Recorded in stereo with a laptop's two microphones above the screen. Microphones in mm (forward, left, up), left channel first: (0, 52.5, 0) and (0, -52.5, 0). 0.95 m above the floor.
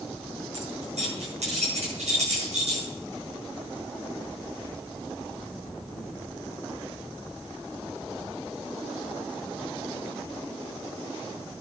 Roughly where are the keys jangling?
Right.